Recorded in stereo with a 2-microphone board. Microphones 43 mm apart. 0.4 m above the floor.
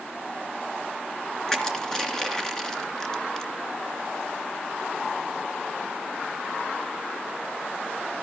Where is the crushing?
15° left (ahead or behind), 3 m.